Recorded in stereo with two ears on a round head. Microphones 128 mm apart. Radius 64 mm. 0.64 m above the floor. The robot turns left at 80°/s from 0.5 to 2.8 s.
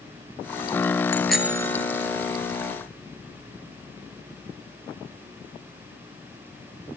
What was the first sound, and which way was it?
A bicycle bell, 20° left.